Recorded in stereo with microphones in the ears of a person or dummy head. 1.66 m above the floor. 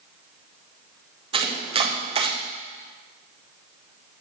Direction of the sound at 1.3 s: 35° right (ahead or behind).